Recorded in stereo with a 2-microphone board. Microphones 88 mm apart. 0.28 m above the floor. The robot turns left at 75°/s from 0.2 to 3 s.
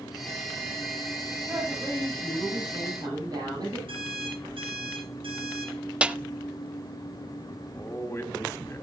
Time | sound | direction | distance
1.5 | a woman speaking | 20° right | 8.5 m
3.9 | an alarm clock | 85° right | 8.5 m
6.0 | a snare drum | 10° right (ahead or behind) | 0.5 m
7.6 | a man speaking | 30° left (ahead or behind) | 1.9 m